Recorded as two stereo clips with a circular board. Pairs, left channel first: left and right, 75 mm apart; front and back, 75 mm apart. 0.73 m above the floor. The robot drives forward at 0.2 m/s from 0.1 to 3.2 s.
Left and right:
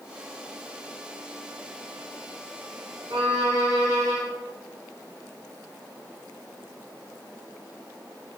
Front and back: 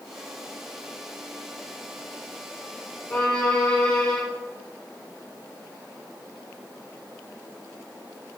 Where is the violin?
85° right, 1.0 m.